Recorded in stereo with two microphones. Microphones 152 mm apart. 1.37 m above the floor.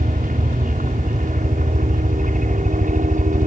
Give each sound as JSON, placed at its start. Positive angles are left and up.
{"t": 0.0, "sound": "a helicopter", "side_deg": -65}